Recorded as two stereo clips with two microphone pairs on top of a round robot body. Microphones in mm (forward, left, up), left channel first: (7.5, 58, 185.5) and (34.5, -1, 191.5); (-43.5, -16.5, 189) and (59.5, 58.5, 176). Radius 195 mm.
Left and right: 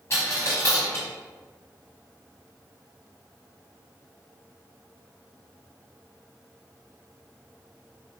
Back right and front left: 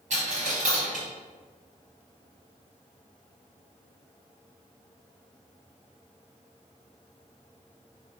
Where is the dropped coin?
65° left, 0.5 m.